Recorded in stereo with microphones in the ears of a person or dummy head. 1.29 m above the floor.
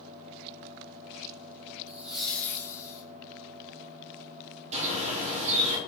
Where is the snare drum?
No snare drum in this recording.